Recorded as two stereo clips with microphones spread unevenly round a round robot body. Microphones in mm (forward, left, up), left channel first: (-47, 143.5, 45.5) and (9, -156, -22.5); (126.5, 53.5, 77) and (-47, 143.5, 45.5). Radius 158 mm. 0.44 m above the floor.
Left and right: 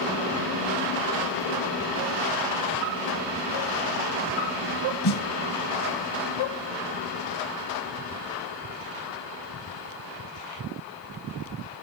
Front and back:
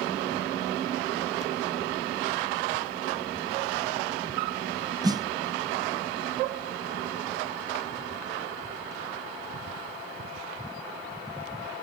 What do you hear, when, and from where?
5.0 s a snare drum: 80° left, 1.0 m